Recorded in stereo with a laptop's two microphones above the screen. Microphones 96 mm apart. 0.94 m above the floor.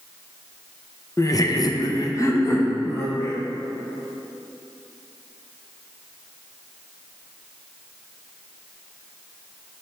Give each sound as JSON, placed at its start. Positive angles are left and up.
{"t": 1.2, "sound": "laughter", "side_deg": 30, "distance_m": 0.6}